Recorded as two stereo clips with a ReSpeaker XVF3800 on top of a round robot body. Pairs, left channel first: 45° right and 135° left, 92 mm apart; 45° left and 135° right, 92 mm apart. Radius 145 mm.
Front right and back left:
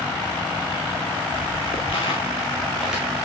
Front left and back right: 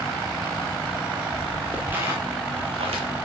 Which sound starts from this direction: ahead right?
Footsteps, at 0.9 s.